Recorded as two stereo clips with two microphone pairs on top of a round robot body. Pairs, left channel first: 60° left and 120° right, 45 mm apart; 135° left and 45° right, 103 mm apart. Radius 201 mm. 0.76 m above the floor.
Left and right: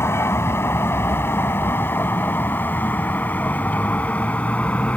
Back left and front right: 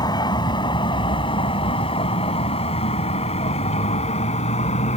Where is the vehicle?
85° left; by 5.0 s 120° left.